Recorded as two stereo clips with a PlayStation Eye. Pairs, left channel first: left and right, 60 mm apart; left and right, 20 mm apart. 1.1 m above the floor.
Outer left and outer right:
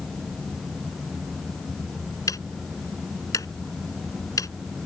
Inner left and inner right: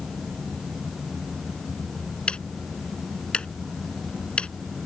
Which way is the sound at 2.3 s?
75° left (ahead or behind).